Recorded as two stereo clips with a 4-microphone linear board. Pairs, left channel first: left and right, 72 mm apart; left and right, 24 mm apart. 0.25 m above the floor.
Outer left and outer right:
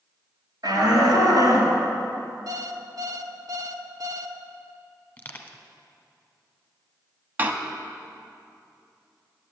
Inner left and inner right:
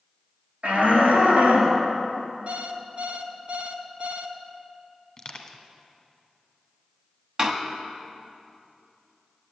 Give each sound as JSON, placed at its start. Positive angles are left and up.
{"t": 0.6, "sound": "a shout", "side_deg": -75, "distance_m": 4.0}
{"t": 2.5, "sound": "an alarm clock", "side_deg": -65, "distance_m": 0.8}
{"t": 5.2, "sound": "crushing", "side_deg": 20, "distance_m": 1.1}
{"t": 7.4, "sound": "a door slam", "side_deg": -30, "distance_m": 0.9}